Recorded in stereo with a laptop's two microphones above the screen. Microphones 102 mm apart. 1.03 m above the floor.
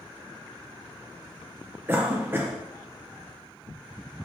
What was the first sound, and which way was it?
A cough, 20° right (ahead or behind).